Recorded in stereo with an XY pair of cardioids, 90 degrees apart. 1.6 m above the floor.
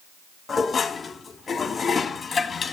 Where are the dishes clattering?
40° left, 1.9 m.